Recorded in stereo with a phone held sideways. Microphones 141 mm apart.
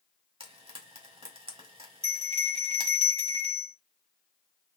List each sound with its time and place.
0.4 s frying: 45° right (ahead or behind), 1.6 m
2.0 s a bell: 45° right (ahead or behind), 1.1 m